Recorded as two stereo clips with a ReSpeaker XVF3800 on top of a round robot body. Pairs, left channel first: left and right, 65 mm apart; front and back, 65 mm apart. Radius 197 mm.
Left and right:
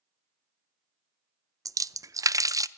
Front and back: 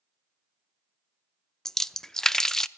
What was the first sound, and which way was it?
A splash, 80° right.